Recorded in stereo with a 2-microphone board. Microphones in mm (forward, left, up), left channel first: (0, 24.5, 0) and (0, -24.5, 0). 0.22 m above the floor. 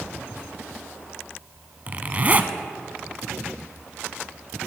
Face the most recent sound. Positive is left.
turn(degrees=-35)  # may be behind; listen again after turning